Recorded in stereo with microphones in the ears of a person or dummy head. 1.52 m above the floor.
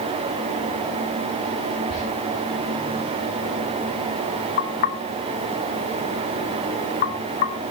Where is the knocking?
45° left (ahead or behind), 0.9 m.